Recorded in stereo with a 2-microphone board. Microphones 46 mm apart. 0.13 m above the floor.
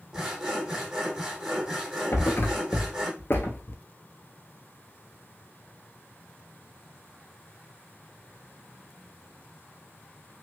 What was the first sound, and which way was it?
Sawing, 15° right (ahead or behind).